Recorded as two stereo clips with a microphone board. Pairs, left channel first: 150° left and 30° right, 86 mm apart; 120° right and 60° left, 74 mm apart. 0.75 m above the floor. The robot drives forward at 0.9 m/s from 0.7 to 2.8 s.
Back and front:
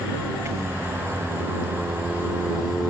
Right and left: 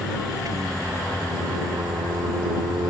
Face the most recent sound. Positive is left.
turn(degrees=60)